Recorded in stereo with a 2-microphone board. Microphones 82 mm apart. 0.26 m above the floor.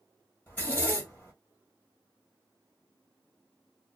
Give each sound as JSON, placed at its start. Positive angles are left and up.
{"t": 0.5, "sound": "a zipper", "side_deg": 20, "distance_m": 1.3}